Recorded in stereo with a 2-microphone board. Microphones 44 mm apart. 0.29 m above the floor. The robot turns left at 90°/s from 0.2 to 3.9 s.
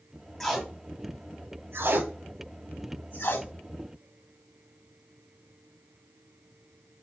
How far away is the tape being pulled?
About 0.7 m.